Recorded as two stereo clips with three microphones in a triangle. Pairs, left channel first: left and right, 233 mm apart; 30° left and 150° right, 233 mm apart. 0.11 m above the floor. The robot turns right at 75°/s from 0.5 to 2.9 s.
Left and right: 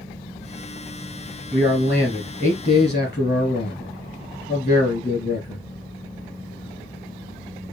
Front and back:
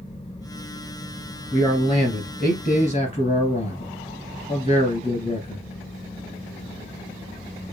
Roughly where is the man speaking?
Ahead right.